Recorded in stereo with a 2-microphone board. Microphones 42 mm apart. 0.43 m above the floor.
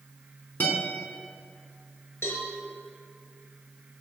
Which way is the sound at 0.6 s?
50° left (ahead or behind).